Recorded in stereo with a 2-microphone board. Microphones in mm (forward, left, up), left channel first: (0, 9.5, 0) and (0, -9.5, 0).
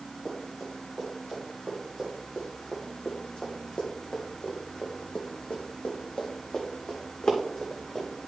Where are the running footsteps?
30° left (ahead or behind), 4 m; by 8.1 s 45° left (ahead or behind), 3 m.